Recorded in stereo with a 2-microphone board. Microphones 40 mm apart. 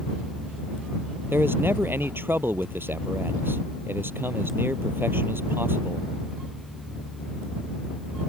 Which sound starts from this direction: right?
A man speaking, at 1.3 s.